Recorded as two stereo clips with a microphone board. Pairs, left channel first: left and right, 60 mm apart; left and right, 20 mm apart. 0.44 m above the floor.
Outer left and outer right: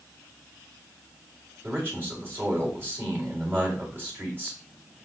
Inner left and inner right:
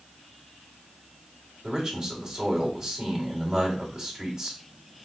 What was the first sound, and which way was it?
A man speaking, 35° right (ahead or behind).